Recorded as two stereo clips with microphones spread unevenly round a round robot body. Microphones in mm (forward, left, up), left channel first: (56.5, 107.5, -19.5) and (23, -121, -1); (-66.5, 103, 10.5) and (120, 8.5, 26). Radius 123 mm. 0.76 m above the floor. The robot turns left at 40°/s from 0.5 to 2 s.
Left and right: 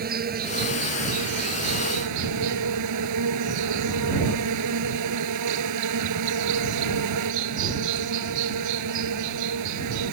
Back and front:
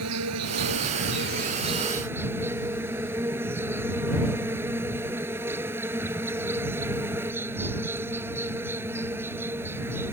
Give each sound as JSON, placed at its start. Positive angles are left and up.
{"t": 0.0, "sound": "an insect", "azimuth_deg": -50}